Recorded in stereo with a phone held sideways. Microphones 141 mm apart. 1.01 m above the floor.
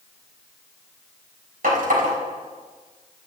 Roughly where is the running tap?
Right.